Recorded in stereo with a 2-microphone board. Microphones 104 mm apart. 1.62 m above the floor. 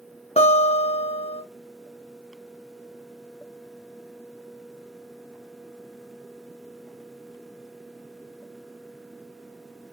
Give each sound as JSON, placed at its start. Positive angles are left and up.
{"t": 0.4, "sound": "a guitar", "side_deg": 75, "distance_m": 2.0}